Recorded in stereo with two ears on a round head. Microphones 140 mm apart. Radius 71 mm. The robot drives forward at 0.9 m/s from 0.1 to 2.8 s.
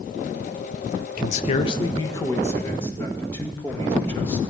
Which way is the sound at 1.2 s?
60° left (ahead or behind).